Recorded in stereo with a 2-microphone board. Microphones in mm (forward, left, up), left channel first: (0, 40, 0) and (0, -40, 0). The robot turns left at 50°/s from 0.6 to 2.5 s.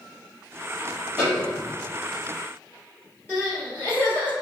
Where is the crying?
25° left (ahead or behind), 1.5 m.